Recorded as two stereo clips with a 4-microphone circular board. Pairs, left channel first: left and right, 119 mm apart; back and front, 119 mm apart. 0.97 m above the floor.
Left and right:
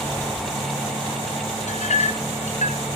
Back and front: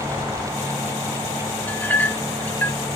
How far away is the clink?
About 0.7 m.